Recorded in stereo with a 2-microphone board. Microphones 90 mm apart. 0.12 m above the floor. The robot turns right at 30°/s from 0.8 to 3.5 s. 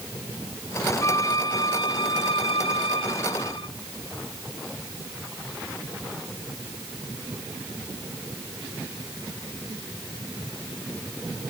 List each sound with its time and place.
1.0 s a violin: 35° left; by 3.7 s 110° left